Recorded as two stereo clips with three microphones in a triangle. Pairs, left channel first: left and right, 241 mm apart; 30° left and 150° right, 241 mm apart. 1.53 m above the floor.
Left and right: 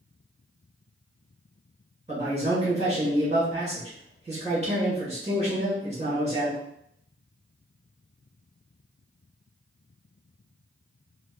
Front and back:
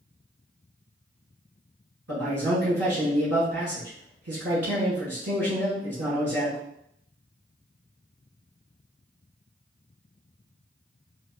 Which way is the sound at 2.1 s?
155° right.